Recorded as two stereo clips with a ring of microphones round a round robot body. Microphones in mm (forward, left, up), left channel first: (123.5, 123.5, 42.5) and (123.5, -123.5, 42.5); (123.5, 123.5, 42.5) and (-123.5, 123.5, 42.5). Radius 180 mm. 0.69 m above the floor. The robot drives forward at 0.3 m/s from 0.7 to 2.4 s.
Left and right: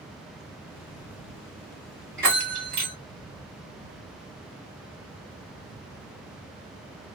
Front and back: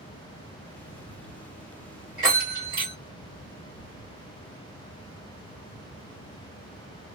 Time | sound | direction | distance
2.2 | a bell | 125° right | 1.7 m